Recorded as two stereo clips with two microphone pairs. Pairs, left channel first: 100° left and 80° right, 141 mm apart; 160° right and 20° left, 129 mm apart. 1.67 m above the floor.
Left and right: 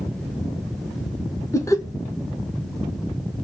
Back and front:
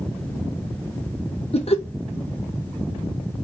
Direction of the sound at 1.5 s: 165° left.